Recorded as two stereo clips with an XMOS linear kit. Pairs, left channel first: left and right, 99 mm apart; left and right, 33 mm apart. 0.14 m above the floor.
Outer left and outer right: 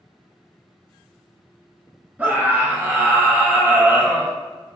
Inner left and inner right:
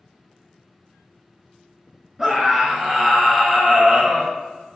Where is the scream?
15° right (ahead or behind), 1.3 m.